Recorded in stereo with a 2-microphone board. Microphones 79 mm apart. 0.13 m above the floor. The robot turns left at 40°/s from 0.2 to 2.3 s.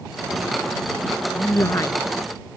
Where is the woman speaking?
30° left (ahead or behind); by 2.0 s 45° left (ahead or behind).